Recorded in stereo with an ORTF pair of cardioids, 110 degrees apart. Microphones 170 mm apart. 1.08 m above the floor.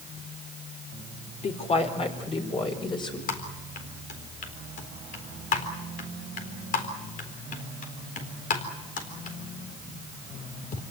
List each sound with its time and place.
1.4 s a woman speaking: 40° left, 4 m; by 3.2 s 25° left, 5 m
3.3 s typing on a keyboard: 55° left, 4 m